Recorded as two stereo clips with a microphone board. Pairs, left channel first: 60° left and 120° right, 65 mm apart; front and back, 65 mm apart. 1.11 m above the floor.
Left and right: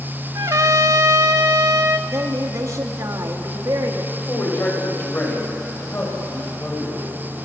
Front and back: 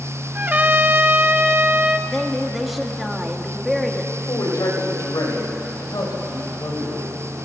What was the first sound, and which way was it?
A trumpet, 120° right.